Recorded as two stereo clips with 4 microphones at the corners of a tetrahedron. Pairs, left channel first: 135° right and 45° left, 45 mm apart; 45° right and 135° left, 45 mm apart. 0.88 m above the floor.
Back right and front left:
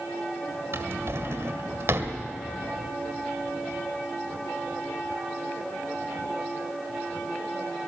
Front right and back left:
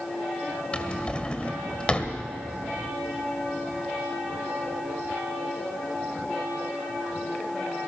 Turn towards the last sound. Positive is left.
turn(degrees=25)